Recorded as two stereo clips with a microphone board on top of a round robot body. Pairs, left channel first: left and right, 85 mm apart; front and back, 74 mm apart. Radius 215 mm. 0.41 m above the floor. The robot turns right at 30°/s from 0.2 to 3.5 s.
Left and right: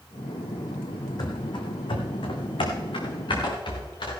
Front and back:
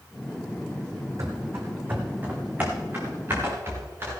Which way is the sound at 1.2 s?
130° left.